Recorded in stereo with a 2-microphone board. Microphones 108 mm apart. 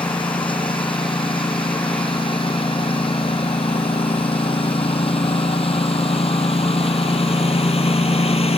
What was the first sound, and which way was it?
A lawn mower, 55° left (ahead or behind).